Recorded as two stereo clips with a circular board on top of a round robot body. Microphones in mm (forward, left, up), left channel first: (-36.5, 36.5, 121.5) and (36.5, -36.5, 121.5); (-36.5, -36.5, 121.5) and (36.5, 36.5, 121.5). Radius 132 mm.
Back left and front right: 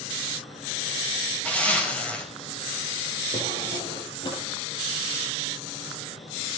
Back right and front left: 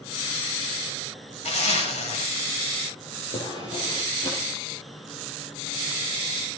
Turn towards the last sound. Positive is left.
turn(degrees=-175)